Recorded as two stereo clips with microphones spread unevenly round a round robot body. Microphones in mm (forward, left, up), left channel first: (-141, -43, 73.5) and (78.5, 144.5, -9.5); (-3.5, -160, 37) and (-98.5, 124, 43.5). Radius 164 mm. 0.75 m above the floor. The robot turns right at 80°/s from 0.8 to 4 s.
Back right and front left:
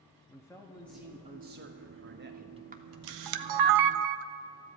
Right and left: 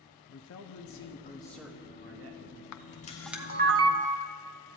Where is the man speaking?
45° right, 0.9 m; by 2.6 s 100° left, 0.9 m.